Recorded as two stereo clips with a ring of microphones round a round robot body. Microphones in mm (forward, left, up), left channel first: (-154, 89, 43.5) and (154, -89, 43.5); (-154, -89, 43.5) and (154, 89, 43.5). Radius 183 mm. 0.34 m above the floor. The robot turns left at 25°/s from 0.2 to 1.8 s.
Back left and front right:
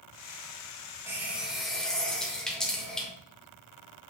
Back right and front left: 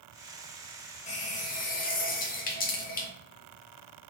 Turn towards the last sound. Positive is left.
turn(degrees=-125)